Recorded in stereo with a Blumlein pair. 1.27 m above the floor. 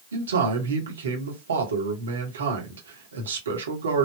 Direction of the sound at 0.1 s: 70° right.